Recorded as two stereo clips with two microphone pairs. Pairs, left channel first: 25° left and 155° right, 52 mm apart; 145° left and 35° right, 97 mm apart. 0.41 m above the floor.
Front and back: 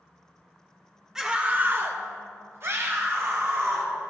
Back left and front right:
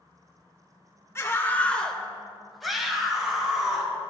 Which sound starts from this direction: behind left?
A scream, at 1.1 s.